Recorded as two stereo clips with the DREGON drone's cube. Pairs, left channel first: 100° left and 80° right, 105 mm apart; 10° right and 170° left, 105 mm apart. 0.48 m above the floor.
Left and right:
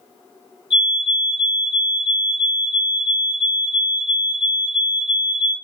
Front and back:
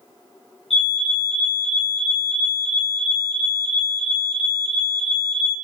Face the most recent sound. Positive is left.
turn(degrees=-5)